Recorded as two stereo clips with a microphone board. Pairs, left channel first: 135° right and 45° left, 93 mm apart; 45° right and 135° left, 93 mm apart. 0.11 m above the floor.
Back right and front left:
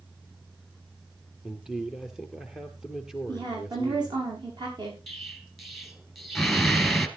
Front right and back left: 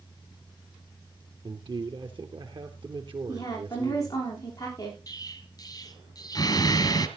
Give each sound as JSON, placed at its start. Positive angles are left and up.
{"t": 1.4, "sound": "a man speaking", "azimuth_deg": 130, "distance_m": 2.5}
{"t": 3.3, "sound": "a woman speaking", "azimuth_deg": 10, "distance_m": 9.0}
{"t": 5.1, "sound": "an explosion", "azimuth_deg": -45, "distance_m": 1.6}